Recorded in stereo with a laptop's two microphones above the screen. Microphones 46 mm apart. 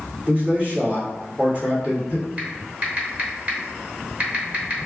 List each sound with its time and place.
0.3 s a man speaking: 30° right (ahead or behind), 1.6 m
2.4 s typing on a keyboard: 30° right (ahead or behind), 1.2 m